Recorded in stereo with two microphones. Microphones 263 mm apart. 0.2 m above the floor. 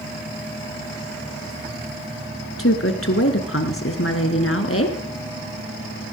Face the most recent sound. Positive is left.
turn(degrees=55)  # may be behind; listen again after turning